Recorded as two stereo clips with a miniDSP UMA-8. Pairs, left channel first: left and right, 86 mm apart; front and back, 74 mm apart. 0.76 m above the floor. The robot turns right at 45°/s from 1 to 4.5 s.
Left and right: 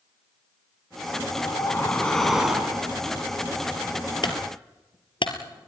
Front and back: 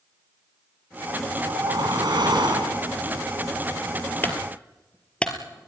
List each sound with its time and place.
1.3 s a whoosh: 135° left, 4.5 m; by 2.9 s 150° right, 4.5 m
4.2 s a clunk: 60° left, 3 m; by 5.7 s 75° left, 3 m